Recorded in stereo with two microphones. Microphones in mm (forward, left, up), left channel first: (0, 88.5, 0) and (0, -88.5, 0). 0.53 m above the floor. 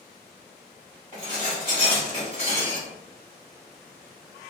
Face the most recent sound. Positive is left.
turn(degrees=40)  # may be behind; listen again after turning